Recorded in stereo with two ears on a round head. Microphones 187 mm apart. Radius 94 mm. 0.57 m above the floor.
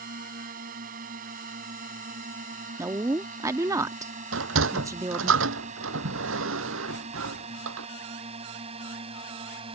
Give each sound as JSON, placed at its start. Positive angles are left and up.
{"t": 0.0, "sound": "a drone", "side_deg": -40}
{"t": 2.8, "sound": "a woman speaking", "side_deg": -15}
{"t": 4.3, "sound": "a sliding door", "side_deg": -70}